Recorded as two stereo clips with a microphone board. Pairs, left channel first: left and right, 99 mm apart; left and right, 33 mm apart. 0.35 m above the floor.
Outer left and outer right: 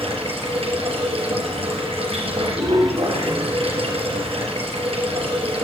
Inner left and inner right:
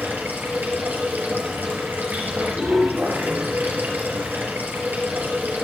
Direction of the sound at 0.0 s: 75° right (ahead or behind).